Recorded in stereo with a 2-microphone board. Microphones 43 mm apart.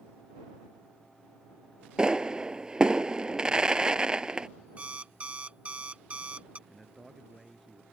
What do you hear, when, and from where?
2.0 s a pop: 20° right (ahead or behind)
4.8 s an alarm clock: 30° right (ahead or behind)
6.7 s a man speaking: centre (ahead or behind)